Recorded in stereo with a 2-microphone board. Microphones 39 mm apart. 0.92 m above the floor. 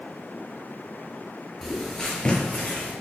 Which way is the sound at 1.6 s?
Centre (ahead or behind).